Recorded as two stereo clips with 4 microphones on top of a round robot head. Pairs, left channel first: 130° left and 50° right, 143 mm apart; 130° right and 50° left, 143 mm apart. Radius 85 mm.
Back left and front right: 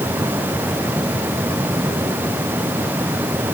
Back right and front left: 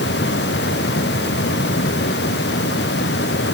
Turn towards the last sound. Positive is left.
No sound to turn to.